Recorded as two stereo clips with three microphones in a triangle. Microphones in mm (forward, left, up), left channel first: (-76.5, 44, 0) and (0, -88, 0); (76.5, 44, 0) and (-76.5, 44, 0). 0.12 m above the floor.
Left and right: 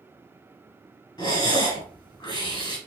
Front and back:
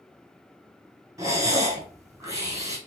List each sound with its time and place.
1.2 s breathing: 135° left, 1.1 m